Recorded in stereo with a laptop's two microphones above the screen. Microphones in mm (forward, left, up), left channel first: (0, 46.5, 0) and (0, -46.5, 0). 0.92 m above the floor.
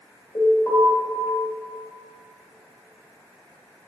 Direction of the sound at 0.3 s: 65° left (ahead or behind).